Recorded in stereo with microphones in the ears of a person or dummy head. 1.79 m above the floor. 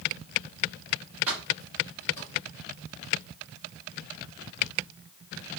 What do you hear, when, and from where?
1.3 s keys jangling: 15° right (ahead or behind), 1.3 m; by 2.3 s 15° left (ahead or behind), 1.3 m